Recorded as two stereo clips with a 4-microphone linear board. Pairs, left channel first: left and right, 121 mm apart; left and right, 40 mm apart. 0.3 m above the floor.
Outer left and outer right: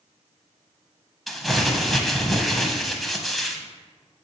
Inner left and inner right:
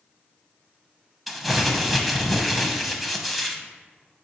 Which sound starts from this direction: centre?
Crumpling, at 1.3 s.